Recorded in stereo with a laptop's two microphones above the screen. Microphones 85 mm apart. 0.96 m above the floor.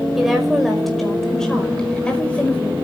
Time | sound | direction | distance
0.2 | a woman speaking | 5° right (ahead or behind) | 5 m